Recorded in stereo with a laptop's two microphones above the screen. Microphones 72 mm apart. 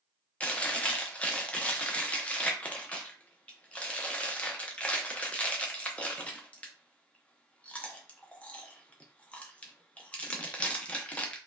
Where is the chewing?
20° left (ahead or behind), 0.7 m.